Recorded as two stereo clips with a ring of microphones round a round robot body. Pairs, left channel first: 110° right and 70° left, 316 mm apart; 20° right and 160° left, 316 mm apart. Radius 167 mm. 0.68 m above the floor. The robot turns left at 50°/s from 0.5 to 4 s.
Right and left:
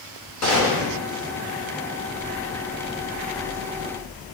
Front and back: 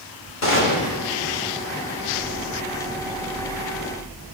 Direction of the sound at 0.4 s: 70° right.